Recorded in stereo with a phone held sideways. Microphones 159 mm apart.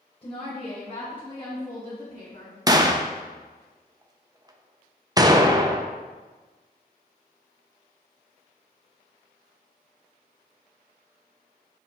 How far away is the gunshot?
About 0.5 m.